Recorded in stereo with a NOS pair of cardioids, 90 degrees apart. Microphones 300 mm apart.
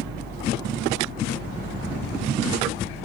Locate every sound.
0.0 s a fan: 35° right